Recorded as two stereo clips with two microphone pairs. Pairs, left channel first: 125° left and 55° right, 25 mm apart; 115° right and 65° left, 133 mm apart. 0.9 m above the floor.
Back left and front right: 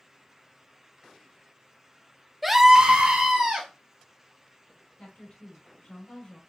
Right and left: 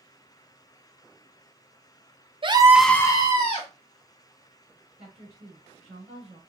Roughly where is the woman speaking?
Left.